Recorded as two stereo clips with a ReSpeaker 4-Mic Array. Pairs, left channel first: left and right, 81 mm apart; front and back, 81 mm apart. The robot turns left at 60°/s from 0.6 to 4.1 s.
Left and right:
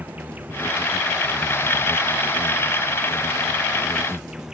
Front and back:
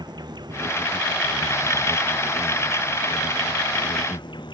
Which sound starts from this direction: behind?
An insect, at 0.0 s.